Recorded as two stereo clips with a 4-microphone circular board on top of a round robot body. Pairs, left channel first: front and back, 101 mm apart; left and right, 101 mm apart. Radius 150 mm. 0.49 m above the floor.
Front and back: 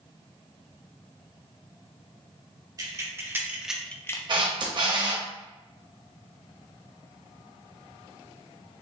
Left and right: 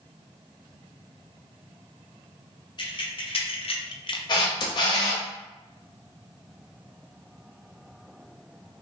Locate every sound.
2.8 s keys jangling: 130° left, 1.3 m; by 4.2 s 55° left, 0.7 m
4.3 s a camera shutter: 135° left, 0.9 m